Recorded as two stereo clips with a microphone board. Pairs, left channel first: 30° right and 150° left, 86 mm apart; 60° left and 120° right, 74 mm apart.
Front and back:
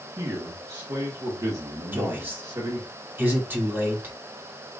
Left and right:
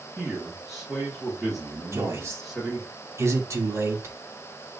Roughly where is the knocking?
No knocking in this recording.